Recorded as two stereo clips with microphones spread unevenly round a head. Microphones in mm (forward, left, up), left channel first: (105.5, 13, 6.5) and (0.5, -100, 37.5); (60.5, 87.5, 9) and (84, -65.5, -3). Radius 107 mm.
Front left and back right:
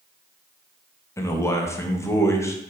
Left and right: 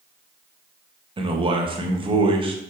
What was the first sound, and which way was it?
A man speaking, 25° right.